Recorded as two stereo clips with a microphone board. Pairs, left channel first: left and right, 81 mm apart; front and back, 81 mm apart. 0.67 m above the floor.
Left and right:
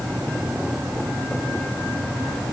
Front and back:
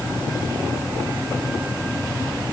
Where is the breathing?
I don't hear breathing.